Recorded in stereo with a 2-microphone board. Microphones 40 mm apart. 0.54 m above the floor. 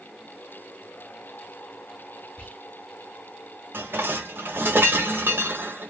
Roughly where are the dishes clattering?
Right.